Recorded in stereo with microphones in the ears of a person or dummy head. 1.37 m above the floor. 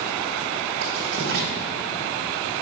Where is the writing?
75° right (ahead or behind), 2.5 m.